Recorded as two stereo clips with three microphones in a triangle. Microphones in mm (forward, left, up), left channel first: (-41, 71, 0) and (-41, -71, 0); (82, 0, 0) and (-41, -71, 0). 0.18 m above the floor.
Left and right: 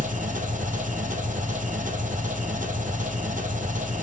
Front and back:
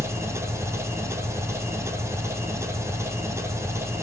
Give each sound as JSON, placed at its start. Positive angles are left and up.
{"t": 0.0, "sound": "an engine running", "azimuth_deg": -80, "distance_m": 1.2}